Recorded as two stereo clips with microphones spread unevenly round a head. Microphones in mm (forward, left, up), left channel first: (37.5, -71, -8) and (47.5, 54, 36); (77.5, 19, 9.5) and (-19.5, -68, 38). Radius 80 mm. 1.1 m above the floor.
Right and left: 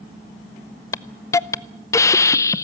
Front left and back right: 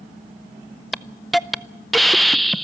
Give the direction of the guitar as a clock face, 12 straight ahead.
I don't hear a guitar.